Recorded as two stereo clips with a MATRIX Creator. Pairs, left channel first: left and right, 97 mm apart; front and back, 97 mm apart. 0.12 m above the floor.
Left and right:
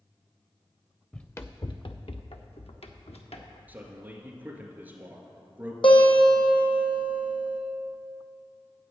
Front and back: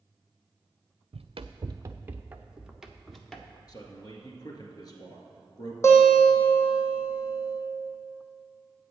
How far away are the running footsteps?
About 0.6 m.